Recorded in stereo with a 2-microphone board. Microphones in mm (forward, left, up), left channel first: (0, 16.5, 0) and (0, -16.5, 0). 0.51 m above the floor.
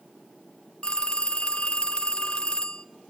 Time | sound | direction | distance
0.8 | a phone ringing | 30° left (ahead or behind) | 0.8 m